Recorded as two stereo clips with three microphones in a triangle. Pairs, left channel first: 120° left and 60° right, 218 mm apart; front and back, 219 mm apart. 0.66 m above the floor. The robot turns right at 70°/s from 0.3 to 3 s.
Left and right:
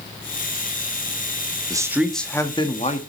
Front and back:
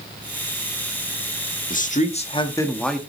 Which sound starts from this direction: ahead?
A man speaking, at 1.7 s.